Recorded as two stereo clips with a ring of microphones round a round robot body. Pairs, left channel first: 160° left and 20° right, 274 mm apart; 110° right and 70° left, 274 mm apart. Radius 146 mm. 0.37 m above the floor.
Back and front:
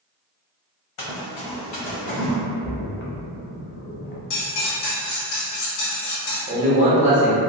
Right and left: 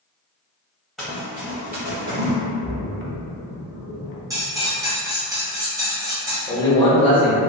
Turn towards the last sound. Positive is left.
turn(degrees=-60)